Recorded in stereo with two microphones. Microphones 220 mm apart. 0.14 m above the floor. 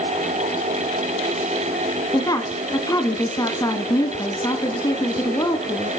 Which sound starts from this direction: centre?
A woman speaking, at 2.1 s.